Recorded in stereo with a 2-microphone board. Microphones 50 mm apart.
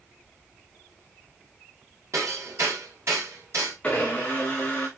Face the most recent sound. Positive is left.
turn(degrees=20)  # may be behind; listen again after turning